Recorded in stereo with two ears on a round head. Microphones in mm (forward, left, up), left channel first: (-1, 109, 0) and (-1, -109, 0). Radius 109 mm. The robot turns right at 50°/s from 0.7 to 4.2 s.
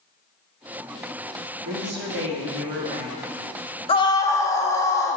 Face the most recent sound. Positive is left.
turn(degrees=10)  # may be behind; listen again after turning